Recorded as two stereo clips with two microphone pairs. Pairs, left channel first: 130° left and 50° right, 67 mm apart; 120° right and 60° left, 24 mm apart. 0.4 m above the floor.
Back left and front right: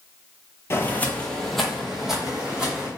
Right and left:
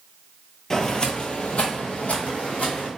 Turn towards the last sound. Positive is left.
turn(degrees=-130)